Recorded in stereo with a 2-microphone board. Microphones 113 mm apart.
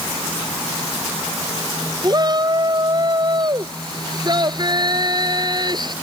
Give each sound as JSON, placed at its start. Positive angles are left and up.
{"t": 2.0, "sound": "a shout", "side_deg": -40}